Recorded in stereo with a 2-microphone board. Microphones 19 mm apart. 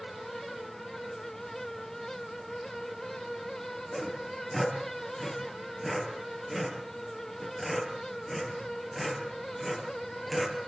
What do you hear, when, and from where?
3.9 s sawing: 10° right (ahead or behind), 6.5 m